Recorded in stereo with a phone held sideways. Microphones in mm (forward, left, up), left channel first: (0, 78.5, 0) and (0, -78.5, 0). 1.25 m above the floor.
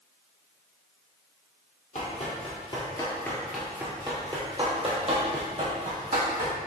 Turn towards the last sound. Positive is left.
turn(degrees=-55)  # may be behind; listen again after turning